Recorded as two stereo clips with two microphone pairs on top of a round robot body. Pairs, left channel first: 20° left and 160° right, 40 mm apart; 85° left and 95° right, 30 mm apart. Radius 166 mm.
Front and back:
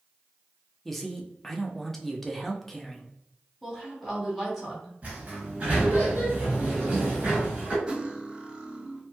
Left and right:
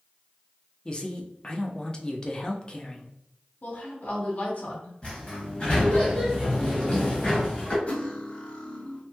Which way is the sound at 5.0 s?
145° left.